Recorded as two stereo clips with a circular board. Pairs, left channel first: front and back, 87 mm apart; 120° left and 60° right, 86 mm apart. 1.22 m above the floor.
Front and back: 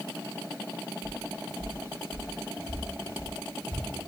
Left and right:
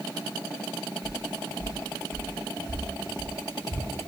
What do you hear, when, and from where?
1.0 s footsteps: 115° left, 1.9 m; by 3.9 s 35° left, 2.0 m